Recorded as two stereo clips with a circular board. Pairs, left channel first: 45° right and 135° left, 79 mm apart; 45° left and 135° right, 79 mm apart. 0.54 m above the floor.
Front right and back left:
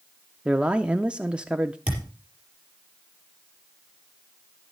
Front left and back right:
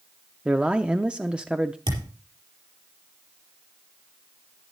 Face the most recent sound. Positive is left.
turn(degrees=-150)